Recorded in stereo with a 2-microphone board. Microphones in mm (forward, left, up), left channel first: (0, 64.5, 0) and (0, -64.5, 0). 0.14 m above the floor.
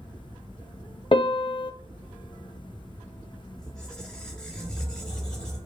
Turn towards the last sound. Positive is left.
turn(degrees=5)  # may be behind; listen again after turning